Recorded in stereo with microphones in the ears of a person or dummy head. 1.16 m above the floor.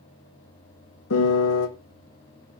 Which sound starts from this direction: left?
A piano, at 1.1 s.